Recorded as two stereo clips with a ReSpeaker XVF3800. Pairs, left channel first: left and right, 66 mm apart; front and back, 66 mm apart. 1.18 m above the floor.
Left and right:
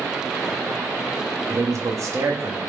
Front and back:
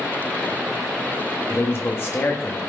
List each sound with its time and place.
1.5 s a man speaking: 50° right, 2.5 m